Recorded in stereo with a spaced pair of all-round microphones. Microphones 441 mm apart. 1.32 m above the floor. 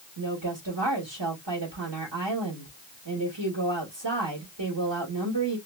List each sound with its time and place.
0.2 s a woman speaking: 70° right (ahead or behind), 2.5 m